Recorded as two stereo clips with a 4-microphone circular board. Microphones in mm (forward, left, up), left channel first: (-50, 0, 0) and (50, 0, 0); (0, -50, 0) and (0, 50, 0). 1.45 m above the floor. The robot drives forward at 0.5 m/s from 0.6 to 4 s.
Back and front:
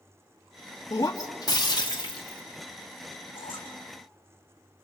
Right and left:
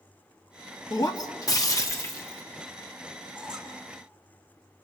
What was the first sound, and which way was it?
Breaking glass, 130° right.